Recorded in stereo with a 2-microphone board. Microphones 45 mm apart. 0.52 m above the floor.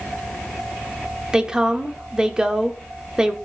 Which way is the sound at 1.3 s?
15° right (ahead or behind).